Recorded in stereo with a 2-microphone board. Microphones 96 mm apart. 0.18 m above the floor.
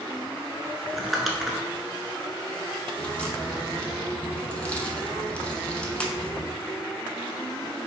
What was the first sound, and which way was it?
Crumpling, centre (ahead or behind).